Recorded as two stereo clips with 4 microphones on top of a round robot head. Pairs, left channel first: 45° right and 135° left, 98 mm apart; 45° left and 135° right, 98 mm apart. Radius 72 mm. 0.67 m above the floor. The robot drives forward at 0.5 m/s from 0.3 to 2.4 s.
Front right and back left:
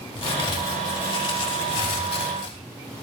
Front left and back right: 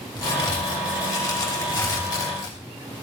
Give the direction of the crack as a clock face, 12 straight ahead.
12 o'clock.